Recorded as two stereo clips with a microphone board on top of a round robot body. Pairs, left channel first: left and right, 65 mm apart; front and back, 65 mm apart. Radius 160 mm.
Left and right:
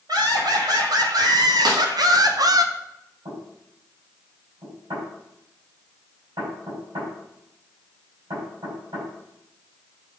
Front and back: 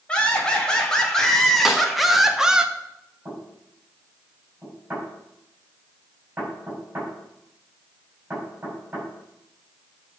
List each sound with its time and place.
0.1 s laughter: 75° right, 3.5 m; by 2.6 s 105° right, 1.5 m
1.6 s a snare drum: 95° right, 2 m
3.2 s knocking: 115° right, 6.5 m